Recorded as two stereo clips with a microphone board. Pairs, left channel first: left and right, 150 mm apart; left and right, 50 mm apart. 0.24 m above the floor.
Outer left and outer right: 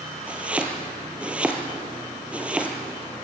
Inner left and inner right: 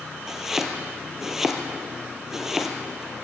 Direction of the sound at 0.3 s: 5° right (ahead or behind).